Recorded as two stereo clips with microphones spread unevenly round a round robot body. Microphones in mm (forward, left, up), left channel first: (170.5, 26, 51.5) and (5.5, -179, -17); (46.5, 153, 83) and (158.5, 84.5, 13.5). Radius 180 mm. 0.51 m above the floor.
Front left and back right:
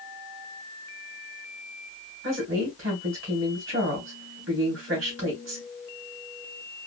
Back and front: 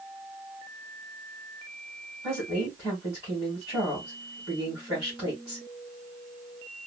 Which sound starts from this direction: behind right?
A woman speaking, at 2.2 s.